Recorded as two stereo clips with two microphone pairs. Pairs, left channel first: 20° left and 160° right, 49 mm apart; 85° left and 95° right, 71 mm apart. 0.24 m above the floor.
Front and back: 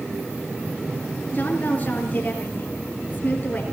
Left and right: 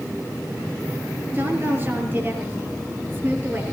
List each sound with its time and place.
1.3 s a woman speaking: 35° right, 5 m